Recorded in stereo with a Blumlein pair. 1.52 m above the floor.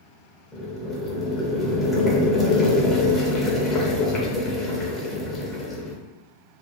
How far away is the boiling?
About 0.7 m.